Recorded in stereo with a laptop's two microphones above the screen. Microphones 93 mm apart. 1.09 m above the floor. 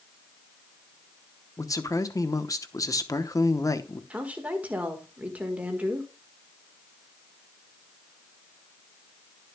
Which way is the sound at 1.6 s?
35° left (ahead or behind).